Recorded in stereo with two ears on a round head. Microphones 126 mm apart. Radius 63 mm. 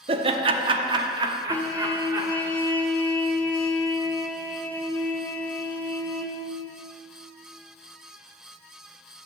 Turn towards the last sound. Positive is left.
turn(degrees=15)  # may be behind; listen again after turning